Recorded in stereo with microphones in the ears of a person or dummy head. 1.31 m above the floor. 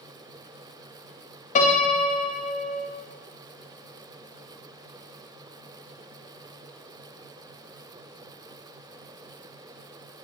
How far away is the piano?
About 1.0 m.